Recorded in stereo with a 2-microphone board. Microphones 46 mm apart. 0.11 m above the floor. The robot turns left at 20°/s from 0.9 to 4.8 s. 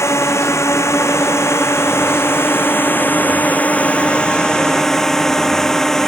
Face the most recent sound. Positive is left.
turn(degrees=10)